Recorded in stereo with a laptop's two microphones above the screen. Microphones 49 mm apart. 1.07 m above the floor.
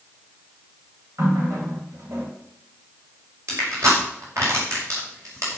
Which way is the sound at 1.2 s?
80° right.